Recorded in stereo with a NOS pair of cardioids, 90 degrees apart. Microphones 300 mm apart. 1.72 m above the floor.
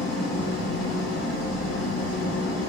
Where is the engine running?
65° left, 2.5 m.